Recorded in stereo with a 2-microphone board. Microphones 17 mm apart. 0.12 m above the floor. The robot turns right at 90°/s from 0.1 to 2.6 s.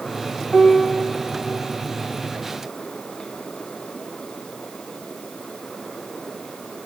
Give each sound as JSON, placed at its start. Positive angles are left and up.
{"t": 0.5, "sound": "a piano", "azimuth_deg": 30, "distance_m": 7.5}